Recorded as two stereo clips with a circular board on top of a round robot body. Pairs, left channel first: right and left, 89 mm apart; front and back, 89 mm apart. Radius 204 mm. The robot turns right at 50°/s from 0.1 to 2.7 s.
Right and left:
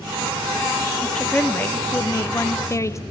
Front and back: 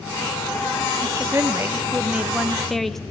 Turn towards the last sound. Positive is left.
turn(degrees=-85)